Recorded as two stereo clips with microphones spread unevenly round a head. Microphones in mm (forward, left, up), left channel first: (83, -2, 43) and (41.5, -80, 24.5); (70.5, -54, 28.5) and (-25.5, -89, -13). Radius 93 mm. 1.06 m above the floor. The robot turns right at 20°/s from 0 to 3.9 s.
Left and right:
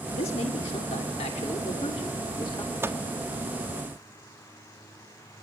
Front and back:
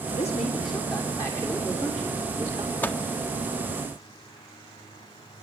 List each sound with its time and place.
0.1 s a man speaking: 75° left, 2.5 m; by 2.9 s 130° left, 2.5 m
2.8 s a microwave: 55° right, 1.6 m; by 3.0 s 50° right, 1.6 m